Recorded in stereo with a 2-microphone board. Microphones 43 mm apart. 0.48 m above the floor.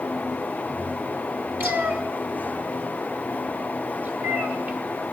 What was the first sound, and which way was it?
A cat meowing, 50° right (ahead or behind).